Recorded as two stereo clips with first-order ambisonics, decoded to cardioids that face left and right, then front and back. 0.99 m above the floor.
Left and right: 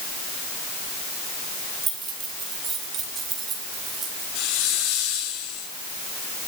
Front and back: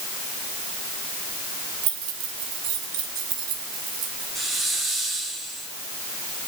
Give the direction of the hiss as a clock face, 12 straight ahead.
9 o'clock.